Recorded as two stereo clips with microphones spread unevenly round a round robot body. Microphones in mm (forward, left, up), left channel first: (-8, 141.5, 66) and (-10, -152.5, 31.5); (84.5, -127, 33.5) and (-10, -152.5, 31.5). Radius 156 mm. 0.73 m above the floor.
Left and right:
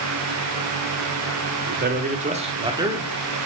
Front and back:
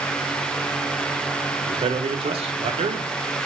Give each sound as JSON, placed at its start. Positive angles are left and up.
{"t": 1.7, "sound": "a man speaking", "azimuth_deg": -145, "distance_m": 1.8}